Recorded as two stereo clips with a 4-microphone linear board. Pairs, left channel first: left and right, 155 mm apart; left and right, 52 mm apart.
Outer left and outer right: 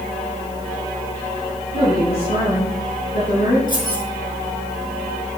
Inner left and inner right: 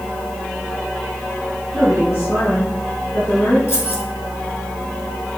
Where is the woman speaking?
75° left (ahead or behind), 4.5 m.